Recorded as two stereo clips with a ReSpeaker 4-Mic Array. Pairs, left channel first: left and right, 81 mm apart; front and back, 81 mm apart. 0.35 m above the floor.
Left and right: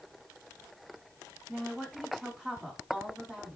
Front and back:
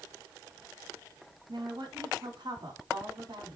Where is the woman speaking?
170° right, 3.5 m.